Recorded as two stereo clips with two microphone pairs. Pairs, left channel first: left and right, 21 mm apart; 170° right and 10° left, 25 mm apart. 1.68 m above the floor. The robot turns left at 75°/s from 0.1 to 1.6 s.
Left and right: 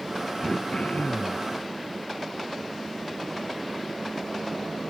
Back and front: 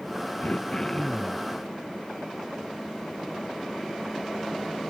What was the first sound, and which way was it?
Throat clearing, 155° left.